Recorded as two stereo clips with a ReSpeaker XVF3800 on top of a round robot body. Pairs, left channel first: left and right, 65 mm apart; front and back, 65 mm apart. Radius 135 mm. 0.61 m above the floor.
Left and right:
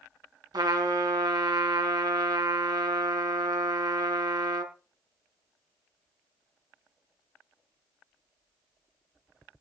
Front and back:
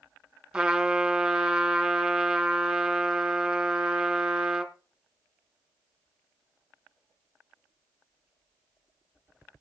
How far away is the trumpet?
About 2 m.